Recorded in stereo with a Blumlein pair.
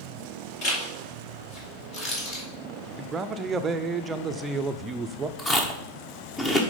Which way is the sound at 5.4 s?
15° left.